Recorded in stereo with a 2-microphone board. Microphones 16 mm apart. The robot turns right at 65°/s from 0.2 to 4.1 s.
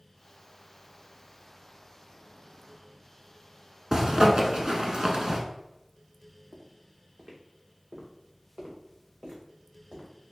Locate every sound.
3.9 s a zipper: 55° right (ahead or behind), 0.7 m; by 5.4 s 70° right (ahead or behind), 0.7 m
6.5 s footsteps: 75° right (ahead or behind), 1.3 m; by 10.1 s 80° right, 3 m